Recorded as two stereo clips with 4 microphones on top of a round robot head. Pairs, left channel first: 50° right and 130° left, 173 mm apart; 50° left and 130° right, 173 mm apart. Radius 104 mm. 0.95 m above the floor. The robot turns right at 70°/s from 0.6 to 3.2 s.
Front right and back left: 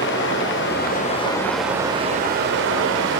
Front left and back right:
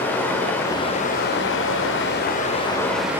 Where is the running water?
30° right, 2 m; by 3.2 s 150° left, 2 m.